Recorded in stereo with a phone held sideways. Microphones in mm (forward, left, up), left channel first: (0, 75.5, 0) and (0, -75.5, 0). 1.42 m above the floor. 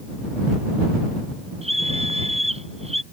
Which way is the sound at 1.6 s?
40° right (ahead or behind).